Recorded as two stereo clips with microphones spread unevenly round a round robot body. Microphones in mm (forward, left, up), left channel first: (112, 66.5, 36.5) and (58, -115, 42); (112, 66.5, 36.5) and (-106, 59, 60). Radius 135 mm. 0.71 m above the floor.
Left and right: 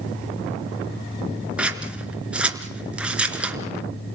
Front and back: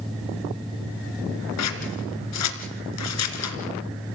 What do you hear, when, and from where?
1.6 s scissors: 20° right, 2.5 m